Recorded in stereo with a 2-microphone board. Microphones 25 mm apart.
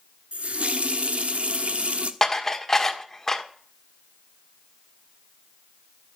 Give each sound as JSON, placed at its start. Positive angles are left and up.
{"t": 0.3, "sound": "a running tap", "side_deg": -60, "distance_m": 1.2}
{"t": 2.2, "sound": "dishes clattering", "side_deg": 20, "distance_m": 1.5}